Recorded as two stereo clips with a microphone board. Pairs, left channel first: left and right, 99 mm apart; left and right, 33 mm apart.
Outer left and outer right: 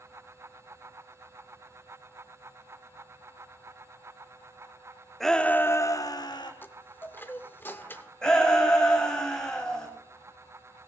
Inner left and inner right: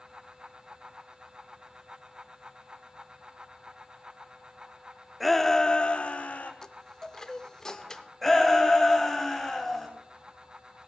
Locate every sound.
5.2 s a shout: centre (ahead or behind), 0.7 m; by 6.5 s 50° left (ahead or behind), 1.0 m
6.6 s a chime: 20° left (ahead or behind), 0.6 m
8.2 s a shout: 5° left (ahead or behind), 3 m